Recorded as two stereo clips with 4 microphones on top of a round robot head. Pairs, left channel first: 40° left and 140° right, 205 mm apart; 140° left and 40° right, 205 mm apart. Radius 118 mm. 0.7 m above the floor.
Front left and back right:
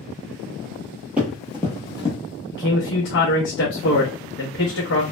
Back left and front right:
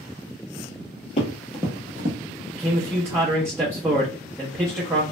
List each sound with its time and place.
1.2 s running footsteps: 145° left, 0.7 m; by 2.2 s 15° right, 0.8 m
2.5 s a man speaking: 35° left, 0.7 m